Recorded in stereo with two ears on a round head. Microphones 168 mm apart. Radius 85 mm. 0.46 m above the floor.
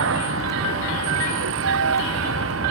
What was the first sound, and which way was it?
A vehicle, 85° right.